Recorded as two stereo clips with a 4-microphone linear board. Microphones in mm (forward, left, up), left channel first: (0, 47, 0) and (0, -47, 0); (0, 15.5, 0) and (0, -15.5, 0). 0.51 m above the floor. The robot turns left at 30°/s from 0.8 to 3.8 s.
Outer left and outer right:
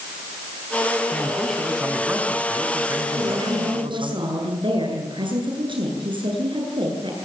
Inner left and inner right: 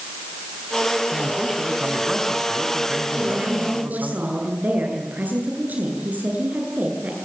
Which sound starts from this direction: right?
A woman speaking, at 3.2 s.